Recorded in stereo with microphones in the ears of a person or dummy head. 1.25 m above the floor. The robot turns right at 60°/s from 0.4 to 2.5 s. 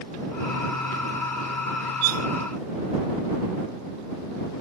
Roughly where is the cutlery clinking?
Right.